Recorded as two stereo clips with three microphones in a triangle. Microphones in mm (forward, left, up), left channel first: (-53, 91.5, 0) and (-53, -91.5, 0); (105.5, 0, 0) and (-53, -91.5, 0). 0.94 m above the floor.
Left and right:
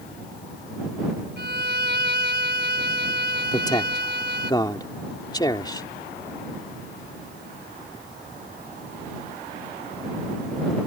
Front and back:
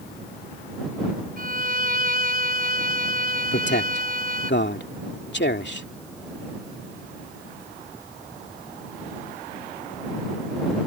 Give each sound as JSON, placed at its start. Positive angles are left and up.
{"t": 1.4, "sound": "a violin", "azimuth_deg": -110}
{"t": 3.5, "sound": "a man speaking", "azimuth_deg": 25}